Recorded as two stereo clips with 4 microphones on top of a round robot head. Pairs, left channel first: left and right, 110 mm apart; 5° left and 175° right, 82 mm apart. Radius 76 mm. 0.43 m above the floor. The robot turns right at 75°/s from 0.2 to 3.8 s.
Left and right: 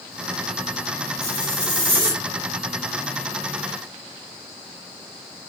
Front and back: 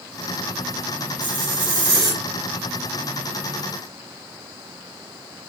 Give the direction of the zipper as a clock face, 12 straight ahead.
6 o'clock.